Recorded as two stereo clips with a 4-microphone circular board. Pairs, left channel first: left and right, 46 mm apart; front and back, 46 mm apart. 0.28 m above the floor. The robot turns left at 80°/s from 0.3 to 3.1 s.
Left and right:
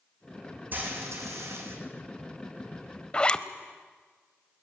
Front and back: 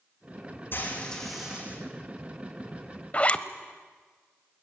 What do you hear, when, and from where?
0.7 s frying: 40° right, 5.5 m; by 1.8 s 125° right, 5.5 m
3.1 s a zipper: 35° left, 0.9 m